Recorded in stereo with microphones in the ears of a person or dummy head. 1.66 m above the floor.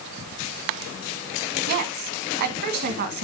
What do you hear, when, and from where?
1.7 s a woman speaking: 50° right (ahead or behind), 1.5 m